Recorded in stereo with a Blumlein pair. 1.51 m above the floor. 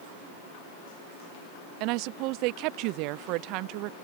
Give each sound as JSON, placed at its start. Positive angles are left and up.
{"t": 1.8, "sound": "a woman speaking", "azimuth_deg": -40}